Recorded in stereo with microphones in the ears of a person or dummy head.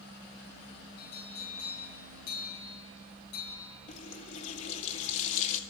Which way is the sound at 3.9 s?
40° left (ahead or behind).